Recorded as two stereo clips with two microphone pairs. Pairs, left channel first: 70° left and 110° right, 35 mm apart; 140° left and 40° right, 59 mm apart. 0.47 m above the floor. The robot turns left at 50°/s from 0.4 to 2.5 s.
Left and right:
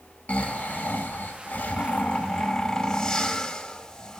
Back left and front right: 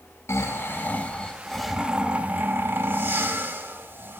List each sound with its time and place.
0.3 s snoring: 105° left, 0.6 m; by 4.2 s straight ahead, 0.6 m